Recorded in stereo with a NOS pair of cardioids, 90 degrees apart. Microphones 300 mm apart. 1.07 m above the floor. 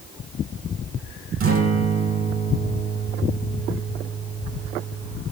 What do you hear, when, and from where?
1.4 s a guitar: 45° right, 4.5 m